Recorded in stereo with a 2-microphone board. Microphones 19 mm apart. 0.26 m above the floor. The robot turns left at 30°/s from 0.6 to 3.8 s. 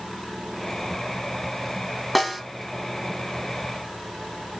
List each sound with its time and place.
2.1 s a snare drum: centre (ahead or behind), 1.4 m; by 2.4 s 5° right (ahead or behind), 1.4 m